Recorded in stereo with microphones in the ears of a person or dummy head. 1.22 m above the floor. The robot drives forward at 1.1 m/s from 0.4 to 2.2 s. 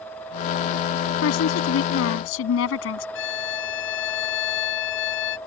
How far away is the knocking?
I don't hear knocking.